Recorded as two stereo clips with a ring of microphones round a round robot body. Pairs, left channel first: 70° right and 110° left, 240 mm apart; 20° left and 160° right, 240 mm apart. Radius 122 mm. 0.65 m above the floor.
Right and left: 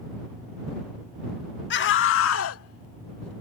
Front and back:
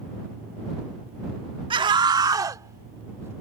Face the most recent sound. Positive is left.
turn(degrees=-80)